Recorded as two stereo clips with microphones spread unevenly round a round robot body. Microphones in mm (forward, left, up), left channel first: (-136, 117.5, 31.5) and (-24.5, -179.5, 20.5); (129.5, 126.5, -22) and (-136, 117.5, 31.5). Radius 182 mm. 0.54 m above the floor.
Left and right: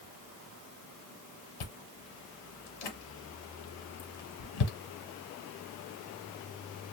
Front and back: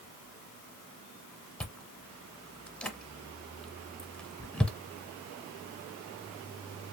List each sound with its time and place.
1.6 s chewing: 90° left, 1.0 m